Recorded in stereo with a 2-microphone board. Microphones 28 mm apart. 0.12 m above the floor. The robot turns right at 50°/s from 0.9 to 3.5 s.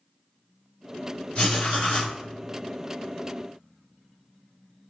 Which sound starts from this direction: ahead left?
Writing, at 1.4 s.